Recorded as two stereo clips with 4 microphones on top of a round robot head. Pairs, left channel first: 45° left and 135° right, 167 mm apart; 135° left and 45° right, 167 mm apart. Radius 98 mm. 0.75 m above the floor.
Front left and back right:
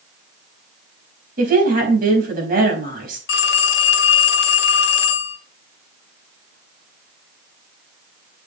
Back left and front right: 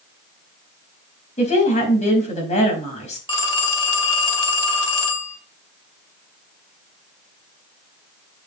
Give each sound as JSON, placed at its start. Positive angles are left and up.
{"t": 1.4, "sound": "a woman speaking", "azimuth_deg": -175, "distance_m": 4.5}
{"t": 3.3, "sound": "a phone ringing", "azimuth_deg": 70, "distance_m": 1.9}